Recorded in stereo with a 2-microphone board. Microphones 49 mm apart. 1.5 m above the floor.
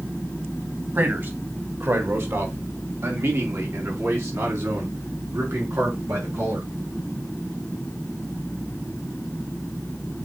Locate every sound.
0.9 s a man speaking: 50° right (ahead or behind), 2.5 m; by 6.7 s 85° right, 6 m